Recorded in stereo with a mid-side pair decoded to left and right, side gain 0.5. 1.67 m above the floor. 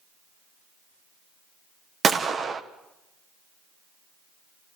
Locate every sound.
2.0 s a gunshot: 40° right, 1.6 m